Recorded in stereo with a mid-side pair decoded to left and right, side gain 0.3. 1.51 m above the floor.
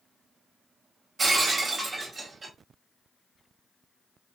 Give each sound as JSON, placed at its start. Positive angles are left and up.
{"t": 1.2, "sound": "breaking glass", "azimuth_deg": -50, "distance_m": 2.5}